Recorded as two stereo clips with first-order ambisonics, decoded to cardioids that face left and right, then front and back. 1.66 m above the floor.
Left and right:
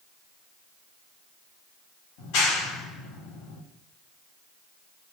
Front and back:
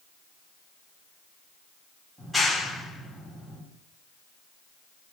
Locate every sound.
2.2 s a clap: 90° left, 3 m